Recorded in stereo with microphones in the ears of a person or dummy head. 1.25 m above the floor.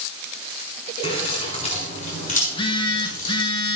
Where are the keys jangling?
30° left (ahead or behind), 4 m; by 3.4 s 55° left (ahead or behind), 4 m.